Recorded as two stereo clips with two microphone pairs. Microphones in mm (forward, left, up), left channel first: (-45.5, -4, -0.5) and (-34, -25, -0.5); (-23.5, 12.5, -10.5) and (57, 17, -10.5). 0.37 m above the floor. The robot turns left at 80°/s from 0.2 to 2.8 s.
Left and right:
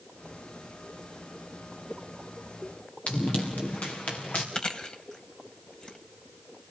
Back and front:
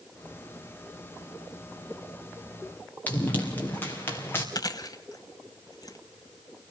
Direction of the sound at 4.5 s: 160° left.